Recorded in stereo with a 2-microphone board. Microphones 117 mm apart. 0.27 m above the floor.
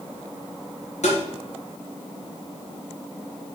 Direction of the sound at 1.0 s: 75° left (ahead or behind).